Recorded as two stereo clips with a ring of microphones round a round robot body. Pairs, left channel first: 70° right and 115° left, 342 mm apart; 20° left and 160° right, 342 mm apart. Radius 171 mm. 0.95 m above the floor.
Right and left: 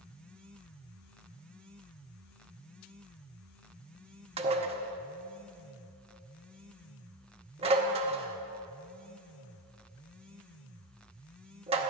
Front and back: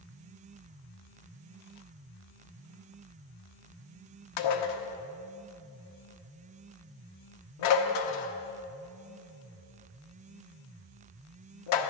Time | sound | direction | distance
4.4 | dishes clattering | 40° left | 0.9 m